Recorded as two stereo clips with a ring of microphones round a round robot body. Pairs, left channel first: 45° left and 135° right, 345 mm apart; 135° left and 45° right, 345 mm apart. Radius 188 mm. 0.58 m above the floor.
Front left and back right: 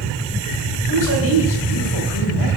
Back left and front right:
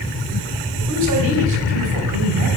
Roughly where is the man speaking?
Ahead.